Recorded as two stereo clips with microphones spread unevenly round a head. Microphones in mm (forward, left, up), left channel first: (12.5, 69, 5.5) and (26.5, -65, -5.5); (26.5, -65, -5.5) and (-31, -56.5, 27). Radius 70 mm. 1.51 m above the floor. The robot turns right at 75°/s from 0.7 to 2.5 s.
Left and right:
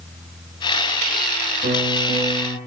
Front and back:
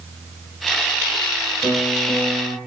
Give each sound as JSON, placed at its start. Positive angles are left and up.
{"t": 1.6, "sound": "a piano", "azimuth_deg": -60, "distance_m": 9.0}